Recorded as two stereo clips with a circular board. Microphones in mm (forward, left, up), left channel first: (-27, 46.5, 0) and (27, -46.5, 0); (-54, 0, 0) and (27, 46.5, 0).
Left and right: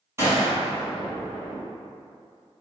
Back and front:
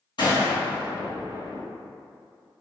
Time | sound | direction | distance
0.2 | a gunshot | 120° right | 1.5 m